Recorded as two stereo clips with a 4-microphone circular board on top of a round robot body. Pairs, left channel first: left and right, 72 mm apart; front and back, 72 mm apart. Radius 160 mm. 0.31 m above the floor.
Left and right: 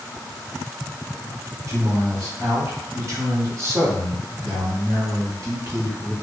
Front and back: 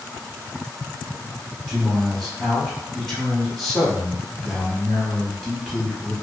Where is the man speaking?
85° right, 1.5 m.